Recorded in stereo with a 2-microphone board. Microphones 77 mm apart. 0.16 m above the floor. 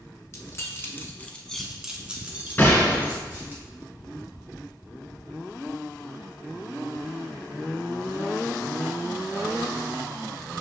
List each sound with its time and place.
0.3 s keys jangling: 40° left (ahead or behind), 1.1 m; by 3.6 s 30° right (ahead or behind), 1.9 m
2.6 s a gunshot: 25° left (ahead or behind), 2 m